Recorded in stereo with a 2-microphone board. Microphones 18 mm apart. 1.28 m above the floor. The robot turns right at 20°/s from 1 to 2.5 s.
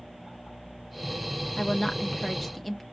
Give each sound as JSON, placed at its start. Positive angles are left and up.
{"t": 1.6, "sound": "a woman speaking", "side_deg": 25, "distance_m": 0.7}